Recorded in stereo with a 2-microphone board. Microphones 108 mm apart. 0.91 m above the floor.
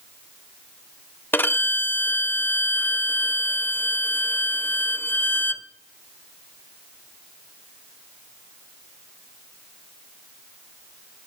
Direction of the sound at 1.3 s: 20° left (ahead or behind).